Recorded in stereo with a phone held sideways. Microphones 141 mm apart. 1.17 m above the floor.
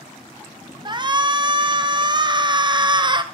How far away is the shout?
About 0.5 m.